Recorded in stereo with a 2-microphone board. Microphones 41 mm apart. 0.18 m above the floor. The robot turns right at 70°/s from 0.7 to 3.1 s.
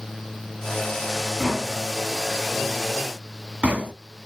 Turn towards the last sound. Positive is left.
turn(degrees=-30)  # may be behind; listen again after turning